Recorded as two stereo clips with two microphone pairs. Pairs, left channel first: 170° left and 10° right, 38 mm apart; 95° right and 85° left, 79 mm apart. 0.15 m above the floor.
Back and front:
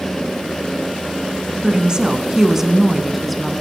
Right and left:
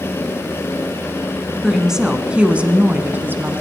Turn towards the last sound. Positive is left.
turn(degrees=90)